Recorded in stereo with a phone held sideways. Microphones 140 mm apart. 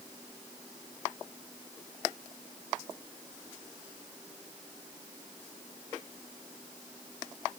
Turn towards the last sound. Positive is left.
No sound to turn to.